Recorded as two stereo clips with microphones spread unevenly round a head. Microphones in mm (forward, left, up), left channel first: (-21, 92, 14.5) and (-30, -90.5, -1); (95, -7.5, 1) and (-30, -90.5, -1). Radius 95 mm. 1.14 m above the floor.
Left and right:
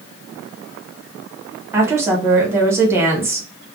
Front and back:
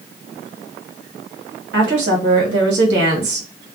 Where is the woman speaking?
170° right, 1.2 m.